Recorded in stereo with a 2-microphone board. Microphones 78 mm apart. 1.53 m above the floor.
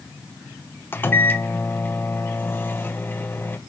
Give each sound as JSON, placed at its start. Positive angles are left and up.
{"t": 0.9, "sound": "a microwave", "side_deg": 25, "distance_m": 0.9}